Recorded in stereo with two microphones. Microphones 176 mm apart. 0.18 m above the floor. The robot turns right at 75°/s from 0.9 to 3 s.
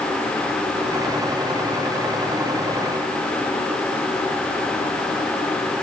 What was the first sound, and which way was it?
Only background noise.